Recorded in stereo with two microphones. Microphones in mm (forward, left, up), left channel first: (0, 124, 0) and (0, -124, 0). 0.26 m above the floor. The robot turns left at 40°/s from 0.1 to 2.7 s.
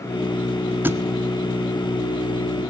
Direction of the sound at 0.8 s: 5° right (ahead or behind).